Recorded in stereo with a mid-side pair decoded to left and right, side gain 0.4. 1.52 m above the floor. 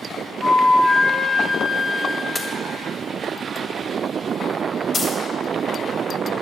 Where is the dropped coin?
50° left, 3 m.